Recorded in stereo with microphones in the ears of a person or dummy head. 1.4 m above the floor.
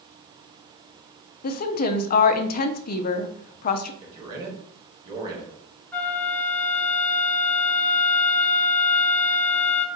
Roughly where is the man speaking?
Right.